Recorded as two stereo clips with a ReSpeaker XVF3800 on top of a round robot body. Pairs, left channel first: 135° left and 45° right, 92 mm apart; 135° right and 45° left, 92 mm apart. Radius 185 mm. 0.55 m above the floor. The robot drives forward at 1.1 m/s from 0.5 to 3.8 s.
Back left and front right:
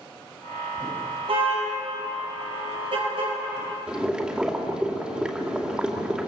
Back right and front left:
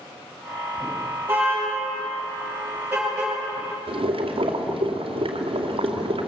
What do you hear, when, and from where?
1.3 s a car horn: 25° right, 9 m; by 3.3 s 30° right, 7 m
3.9 s boiling: 35° left, 2.5 m